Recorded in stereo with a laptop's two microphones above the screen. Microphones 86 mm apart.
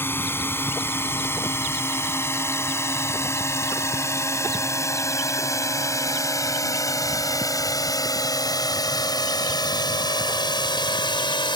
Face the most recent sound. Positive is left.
turn(degrees=65)  # may be behind; listen again after turning